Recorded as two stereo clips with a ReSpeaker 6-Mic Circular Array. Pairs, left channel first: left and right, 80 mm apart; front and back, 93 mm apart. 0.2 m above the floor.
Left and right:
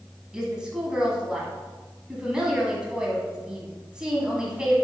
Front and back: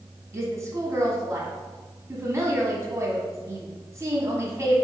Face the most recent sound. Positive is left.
turn(degrees=-165)